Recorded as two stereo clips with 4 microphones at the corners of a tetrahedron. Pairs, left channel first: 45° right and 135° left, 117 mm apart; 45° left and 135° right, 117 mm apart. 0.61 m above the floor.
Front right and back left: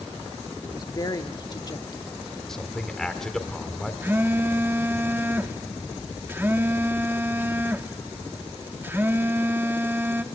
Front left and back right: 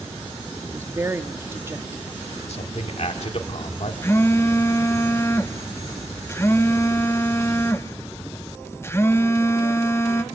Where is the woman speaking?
75° right, 0.9 m.